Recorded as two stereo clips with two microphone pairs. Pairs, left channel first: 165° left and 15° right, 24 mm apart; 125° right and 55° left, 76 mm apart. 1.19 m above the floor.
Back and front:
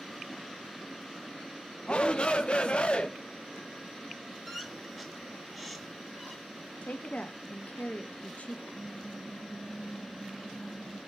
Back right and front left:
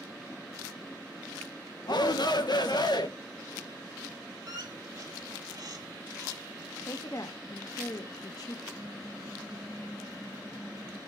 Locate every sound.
1.9 s a shout: 150° right, 1.1 m
4.5 s a squeak: 75° left, 1.9 m
6.8 s a woman speaking: 165° right, 1.3 m
8.7 s typing on a keyboard: 15° left, 2.5 m